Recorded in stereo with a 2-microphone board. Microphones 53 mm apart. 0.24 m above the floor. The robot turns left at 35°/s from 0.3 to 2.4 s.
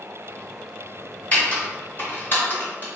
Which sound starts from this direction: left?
Typing on a keyboard, at 1.3 s.